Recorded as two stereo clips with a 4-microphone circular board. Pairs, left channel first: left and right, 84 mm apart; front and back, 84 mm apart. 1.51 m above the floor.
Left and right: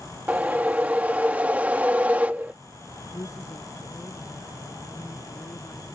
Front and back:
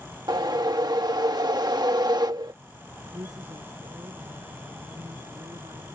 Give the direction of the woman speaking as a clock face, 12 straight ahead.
7 o'clock.